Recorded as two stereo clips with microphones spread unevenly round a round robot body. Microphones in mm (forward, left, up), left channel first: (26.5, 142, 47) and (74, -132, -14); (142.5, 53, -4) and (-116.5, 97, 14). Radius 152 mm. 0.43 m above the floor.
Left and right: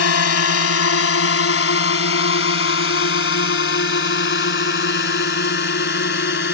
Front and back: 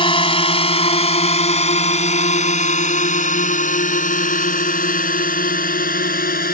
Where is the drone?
60° left; by 6.5 s 45° left.